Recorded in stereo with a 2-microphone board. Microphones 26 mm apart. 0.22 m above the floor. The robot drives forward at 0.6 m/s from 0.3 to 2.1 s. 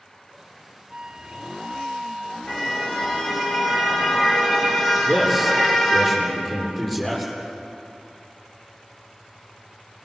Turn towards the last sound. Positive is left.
turn(degrees=15)  # may be behind; listen again after turning